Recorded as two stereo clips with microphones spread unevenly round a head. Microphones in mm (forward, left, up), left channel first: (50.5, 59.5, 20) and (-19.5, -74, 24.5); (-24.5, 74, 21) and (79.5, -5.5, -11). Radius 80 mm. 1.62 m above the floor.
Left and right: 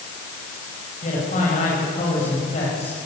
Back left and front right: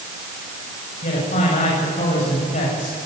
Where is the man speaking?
115° left, 8 m.